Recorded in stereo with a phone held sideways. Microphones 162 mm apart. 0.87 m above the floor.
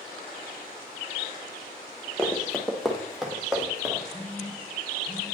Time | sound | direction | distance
2.2 | running footsteps | 5° left (ahead or behind) | 1.0 m
4.1 | a phone buzzing | 30° left (ahead or behind) | 3 m